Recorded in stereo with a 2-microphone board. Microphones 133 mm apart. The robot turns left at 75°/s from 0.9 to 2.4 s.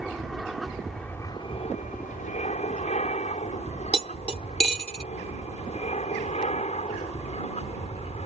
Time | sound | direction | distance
0.0 | an aircraft | centre (ahead or behind) | ?
3.9 | cutlery clinking | 50° right (ahead or behind) | ?